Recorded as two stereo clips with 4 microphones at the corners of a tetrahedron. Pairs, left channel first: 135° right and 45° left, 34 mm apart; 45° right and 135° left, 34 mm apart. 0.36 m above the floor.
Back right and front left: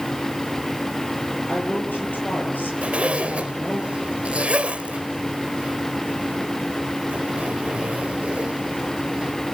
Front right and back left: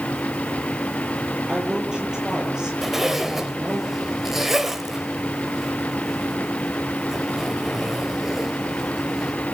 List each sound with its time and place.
1.5 s a woman speaking: 155° right, 8 m
2.8 s a zipper: 60° left, 1.8 m